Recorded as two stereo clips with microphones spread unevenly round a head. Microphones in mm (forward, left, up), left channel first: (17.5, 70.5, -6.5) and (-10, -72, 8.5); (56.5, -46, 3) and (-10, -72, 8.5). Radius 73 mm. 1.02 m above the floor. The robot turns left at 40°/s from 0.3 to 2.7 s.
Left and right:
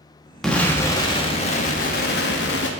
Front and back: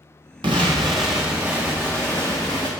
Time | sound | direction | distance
0.4 | an explosion | 165° left | 0.8 m